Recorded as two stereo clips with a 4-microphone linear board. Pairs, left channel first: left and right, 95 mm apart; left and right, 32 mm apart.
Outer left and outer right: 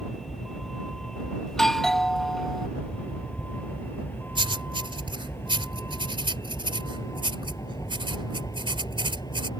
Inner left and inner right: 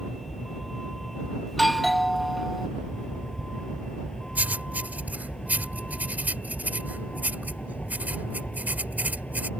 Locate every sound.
0.0 s a vehicle: centre (ahead or behind); by 9.6 s 45° left (ahead or behind)
1.5 s a doorbell: 5° left (ahead or behind)
4.3 s writing: 60° right (ahead or behind)